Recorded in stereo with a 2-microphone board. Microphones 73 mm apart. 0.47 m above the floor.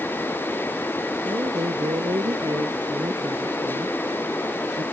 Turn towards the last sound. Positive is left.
turn(degrees=-85)